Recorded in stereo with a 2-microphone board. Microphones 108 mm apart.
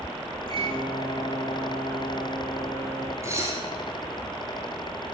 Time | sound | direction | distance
0.5 | a microwave | 55° right (ahead or behind) | 4 m
3.2 | dishes clattering | 25° right (ahead or behind) | 2.5 m